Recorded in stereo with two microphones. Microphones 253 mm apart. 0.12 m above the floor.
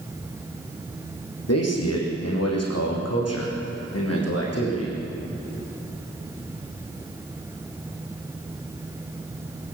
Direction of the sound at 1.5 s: 75° left (ahead or behind).